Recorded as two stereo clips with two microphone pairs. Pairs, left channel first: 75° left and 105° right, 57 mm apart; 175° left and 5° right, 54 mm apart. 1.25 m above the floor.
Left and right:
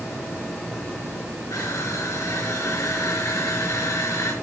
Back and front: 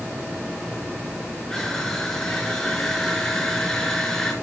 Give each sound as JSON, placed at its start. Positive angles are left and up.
{"t": 1.5, "sound": "crushing", "azimuth_deg": 90, "distance_m": 4.0}